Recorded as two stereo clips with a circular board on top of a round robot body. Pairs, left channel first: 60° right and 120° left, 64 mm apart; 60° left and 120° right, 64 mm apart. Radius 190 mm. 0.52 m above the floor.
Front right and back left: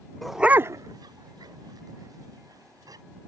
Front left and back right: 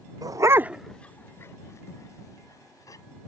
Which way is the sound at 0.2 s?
145° right.